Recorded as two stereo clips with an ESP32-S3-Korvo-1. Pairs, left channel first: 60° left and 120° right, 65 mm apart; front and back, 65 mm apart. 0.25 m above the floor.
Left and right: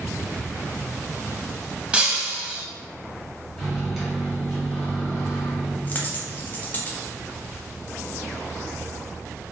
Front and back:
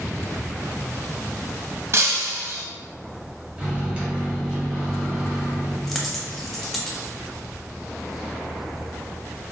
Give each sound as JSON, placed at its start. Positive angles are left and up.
{"t": 1.9, "sound": "breaking glass", "azimuth_deg": 175, "distance_m": 0.6}
{"t": 3.6, "sound": "a microwave", "azimuth_deg": 150, "distance_m": 0.9}
{"t": 5.9, "sound": "a dropped coin", "azimuth_deg": 85, "distance_m": 0.5}